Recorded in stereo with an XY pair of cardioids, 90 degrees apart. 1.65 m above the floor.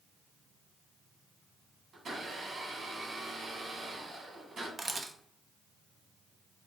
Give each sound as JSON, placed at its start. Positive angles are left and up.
{"t": 1.9, "sound": "a blender", "azimuth_deg": -60, "distance_m": 1.4}
{"t": 4.8, "sound": "a camera shutter", "azimuth_deg": -35, "distance_m": 0.6}